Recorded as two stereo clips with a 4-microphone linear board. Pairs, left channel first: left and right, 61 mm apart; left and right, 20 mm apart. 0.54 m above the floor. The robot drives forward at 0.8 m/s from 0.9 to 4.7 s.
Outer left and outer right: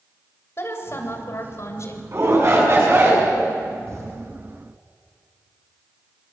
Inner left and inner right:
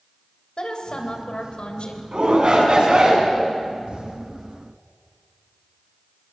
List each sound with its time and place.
0.6 s a woman speaking: 45° left (ahead or behind), 3 m; by 2.0 s 55° left (ahead or behind), 2.5 m
2.1 s a shout: 50° right (ahead or behind), 6 m; by 3.3 s 45° right (ahead or behind), 6.5 m
3.9 s an explosion: 50° right (ahead or behind), 5 m